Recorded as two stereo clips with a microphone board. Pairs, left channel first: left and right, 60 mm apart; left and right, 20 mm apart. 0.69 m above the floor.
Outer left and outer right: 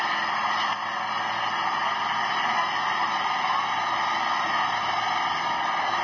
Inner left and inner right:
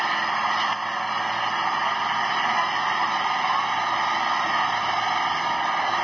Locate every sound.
0.0 s an engine running: 5° left (ahead or behind)